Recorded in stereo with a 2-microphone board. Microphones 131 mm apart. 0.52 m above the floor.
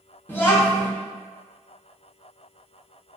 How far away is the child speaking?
About 0.6 m.